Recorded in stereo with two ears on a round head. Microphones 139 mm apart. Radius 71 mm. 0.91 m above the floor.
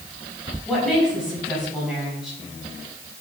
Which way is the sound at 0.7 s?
5° right (ahead or behind).